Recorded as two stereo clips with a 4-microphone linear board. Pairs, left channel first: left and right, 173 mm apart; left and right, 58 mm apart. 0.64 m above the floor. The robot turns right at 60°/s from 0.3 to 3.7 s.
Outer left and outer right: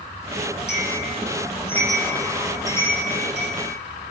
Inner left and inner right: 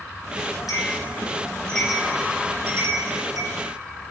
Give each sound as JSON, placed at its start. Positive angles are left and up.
{"t": 0.7, "sound": "a bell", "side_deg": 75, "distance_m": 10.0}